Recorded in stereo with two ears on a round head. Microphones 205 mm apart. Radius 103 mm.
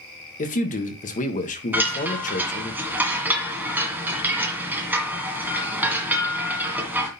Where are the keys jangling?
I don't hear keys jangling.